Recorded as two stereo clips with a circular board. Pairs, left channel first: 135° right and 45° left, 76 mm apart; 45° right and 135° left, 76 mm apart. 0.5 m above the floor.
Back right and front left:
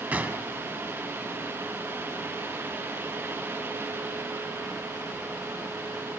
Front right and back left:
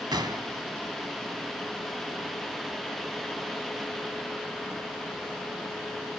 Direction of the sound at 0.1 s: 115° left.